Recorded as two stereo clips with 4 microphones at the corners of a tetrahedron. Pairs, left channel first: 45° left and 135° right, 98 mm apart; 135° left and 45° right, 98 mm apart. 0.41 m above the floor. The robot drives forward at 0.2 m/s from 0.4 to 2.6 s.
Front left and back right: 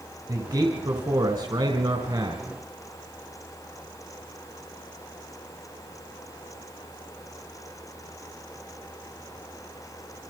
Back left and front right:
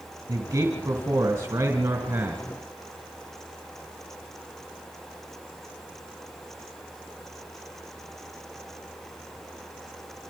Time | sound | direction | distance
0.3 | a man speaking | 95° right | 2.5 m